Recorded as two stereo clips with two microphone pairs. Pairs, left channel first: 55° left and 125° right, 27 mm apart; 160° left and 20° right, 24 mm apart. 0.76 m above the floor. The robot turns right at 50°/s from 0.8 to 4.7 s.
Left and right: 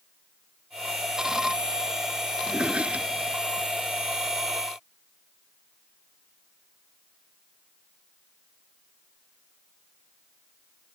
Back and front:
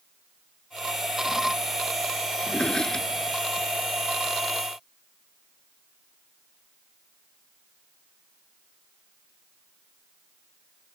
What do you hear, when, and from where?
2.4 s a drawer: 165° right; by 3.7 s 105° right